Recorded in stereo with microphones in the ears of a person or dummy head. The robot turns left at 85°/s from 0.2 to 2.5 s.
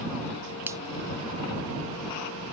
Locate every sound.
0.7 s a finger snap: 10° right (ahead or behind); by 0.8 s 25° right (ahead or behind)